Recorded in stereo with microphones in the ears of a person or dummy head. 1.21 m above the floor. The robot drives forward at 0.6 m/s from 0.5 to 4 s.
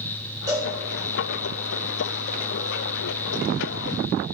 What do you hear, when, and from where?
0.5 s a cowbell: 15° right (ahead or behind), 2.5 m